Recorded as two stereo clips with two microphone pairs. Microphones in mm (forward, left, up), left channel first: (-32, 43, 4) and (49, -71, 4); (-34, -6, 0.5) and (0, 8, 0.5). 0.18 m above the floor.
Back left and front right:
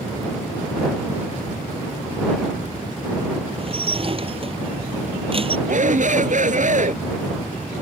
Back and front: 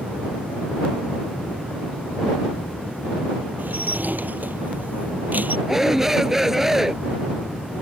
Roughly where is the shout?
Ahead right.